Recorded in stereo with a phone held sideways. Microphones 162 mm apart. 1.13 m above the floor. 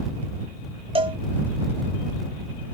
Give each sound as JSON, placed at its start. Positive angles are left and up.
{"t": 0.9, "sound": "a cowbell", "side_deg": -35}